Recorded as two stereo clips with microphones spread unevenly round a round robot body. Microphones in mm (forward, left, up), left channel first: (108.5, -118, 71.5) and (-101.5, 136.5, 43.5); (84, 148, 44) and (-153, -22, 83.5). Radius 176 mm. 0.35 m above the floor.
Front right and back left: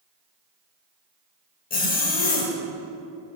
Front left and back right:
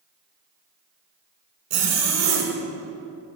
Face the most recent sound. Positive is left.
turn(degrees=-115)